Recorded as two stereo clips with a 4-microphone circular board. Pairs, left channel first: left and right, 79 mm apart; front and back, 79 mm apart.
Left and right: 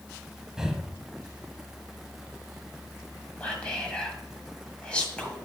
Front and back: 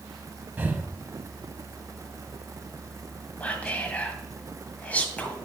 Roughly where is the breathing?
Behind.